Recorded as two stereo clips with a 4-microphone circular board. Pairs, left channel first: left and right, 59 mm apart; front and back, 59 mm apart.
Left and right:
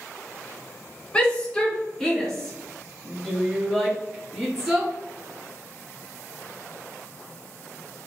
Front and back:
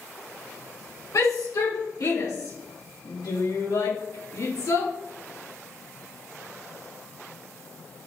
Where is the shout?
15° left, 3 m; by 4.9 s 5° right, 5 m.